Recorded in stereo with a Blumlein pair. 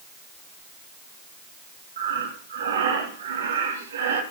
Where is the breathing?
65° right, 3 m.